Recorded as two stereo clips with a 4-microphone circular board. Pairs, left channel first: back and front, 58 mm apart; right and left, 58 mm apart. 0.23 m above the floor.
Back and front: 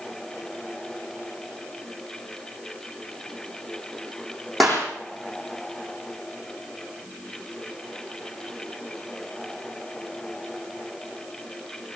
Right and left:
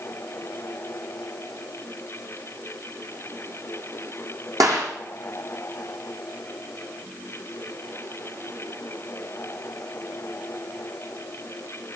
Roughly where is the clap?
Left.